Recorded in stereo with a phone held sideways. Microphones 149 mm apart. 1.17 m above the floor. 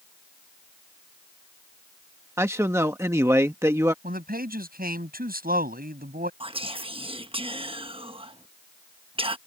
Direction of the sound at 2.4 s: 20° right (ahead or behind).